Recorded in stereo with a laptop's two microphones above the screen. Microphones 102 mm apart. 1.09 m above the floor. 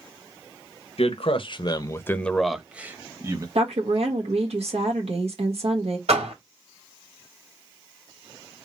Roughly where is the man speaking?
Left.